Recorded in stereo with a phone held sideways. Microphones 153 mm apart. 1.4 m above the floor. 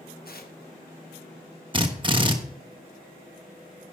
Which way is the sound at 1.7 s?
30° right (ahead or behind).